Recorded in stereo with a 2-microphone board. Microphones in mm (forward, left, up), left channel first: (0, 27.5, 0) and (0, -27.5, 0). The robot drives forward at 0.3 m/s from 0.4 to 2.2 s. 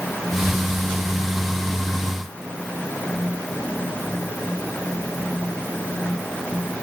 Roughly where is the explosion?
I don't hear an explosion.